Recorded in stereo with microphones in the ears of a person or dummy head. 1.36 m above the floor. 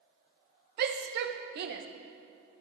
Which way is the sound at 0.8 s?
55° right (ahead or behind).